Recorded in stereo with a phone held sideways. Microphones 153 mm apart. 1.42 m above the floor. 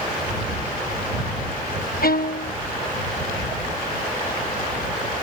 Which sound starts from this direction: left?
A violin, at 2.0 s.